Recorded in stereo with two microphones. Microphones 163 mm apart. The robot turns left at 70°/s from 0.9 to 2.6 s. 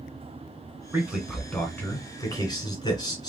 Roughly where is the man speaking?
Centre.